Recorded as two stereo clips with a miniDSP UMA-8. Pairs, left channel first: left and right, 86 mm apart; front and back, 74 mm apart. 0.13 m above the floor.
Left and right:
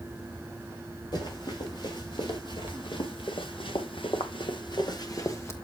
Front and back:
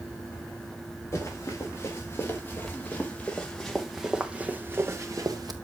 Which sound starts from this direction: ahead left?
Running footsteps, at 1.1 s.